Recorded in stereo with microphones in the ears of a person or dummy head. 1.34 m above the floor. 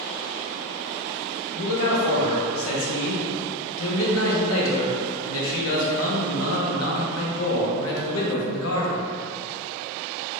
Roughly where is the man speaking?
Left.